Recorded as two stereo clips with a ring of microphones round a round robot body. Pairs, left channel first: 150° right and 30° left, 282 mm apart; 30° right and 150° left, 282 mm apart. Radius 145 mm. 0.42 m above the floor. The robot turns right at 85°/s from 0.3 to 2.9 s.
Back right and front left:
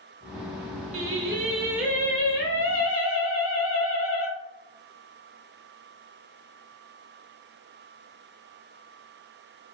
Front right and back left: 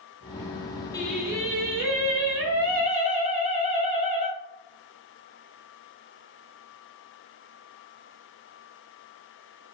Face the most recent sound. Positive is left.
turn(degrees=-150)